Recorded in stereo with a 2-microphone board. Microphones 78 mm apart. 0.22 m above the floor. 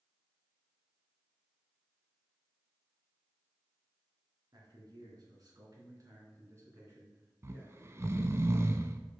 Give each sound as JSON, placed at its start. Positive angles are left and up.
{"t": 4.5, "sound": "a man speaking", "side_deg": -55, "distance_m": 3.0}
{"t": 7.4, "sound": "snoring", "side_deg": -35, "distance_m": 0.6}